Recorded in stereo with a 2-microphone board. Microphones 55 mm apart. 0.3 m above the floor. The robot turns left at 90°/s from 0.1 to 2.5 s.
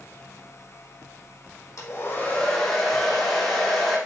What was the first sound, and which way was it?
A hair dryer, 70° left.